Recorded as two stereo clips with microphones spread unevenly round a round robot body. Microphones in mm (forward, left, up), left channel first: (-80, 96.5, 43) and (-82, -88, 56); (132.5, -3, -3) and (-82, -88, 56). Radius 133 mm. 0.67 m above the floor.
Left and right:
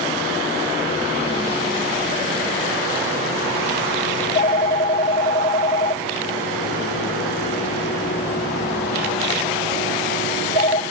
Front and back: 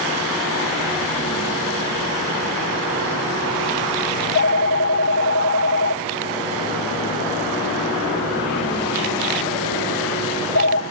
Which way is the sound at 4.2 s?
40° left.